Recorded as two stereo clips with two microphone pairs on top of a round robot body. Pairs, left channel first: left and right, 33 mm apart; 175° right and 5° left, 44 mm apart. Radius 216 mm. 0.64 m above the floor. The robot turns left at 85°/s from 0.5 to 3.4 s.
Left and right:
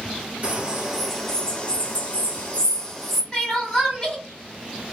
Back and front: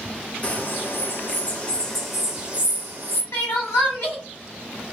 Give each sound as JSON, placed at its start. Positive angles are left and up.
{"t": 0.4, "sound": "a bird", "azimuth_deg": -130, "distance_m": 1.2}
{"t": 3.3, "sound": "crying", "azimuth_deg": 170, "distance_m": 0.6}